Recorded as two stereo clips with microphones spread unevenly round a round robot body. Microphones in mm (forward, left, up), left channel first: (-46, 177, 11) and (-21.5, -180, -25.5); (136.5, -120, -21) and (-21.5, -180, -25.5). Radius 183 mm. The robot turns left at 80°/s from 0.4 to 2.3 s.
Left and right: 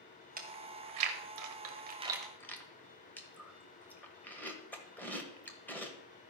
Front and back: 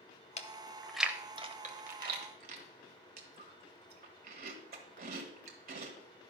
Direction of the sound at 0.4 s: 25° right.